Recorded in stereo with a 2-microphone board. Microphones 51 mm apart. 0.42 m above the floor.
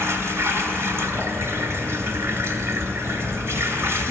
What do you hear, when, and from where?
0.0 s running water: 60° right (ahead or behind), 1.8 m